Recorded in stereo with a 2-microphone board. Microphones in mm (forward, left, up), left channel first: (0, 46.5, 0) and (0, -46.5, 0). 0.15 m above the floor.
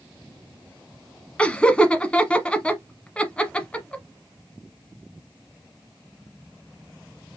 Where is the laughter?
15° left (ahead or behind), 1.0 m.